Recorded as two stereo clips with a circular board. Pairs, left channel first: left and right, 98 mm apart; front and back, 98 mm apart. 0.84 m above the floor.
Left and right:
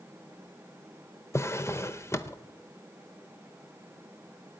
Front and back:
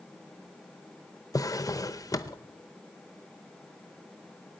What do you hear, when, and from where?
1.3 s a drawer: 40° left, 0.7 m